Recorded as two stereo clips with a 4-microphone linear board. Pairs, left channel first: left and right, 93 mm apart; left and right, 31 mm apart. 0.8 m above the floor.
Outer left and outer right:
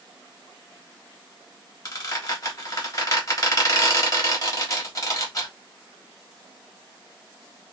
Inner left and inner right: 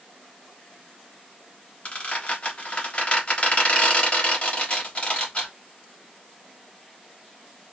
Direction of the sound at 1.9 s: 40° left (ahead or behind).